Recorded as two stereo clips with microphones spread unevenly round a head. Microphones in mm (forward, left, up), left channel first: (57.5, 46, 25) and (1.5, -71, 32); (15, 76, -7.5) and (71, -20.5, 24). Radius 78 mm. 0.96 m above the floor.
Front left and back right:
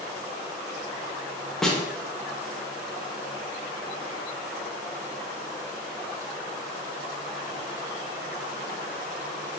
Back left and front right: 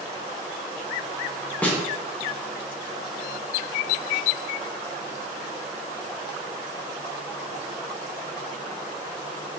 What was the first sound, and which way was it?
A snare drum, 140° left.